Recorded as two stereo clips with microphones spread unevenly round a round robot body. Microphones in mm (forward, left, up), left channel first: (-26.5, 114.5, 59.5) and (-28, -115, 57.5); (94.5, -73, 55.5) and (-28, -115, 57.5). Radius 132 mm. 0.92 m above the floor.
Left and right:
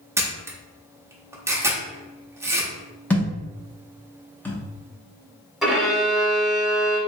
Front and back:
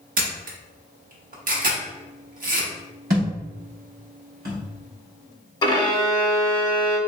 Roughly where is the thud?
Behind.